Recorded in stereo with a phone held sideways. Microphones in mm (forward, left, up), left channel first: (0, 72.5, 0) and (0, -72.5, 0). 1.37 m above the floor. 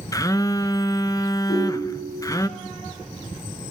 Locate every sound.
0.1 s a phone buzzing: 25° left (ahead or behind), 0.5 m
1.5 s a ringtone: 80° left, 7 m